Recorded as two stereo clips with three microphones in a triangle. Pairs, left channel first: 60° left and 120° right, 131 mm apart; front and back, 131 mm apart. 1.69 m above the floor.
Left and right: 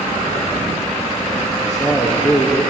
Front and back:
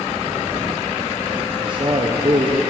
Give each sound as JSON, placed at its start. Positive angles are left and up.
{"t": 1.6, "sound": "a man speaking", "azimuth_deg": 130, "distance_m": 0.9}